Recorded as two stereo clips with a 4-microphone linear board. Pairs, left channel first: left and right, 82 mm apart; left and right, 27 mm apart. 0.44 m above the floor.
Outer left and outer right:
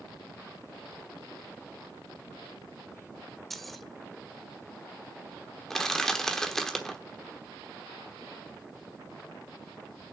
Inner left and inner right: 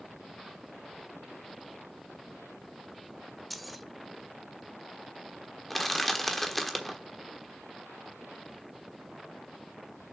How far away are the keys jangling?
About 0.6 m.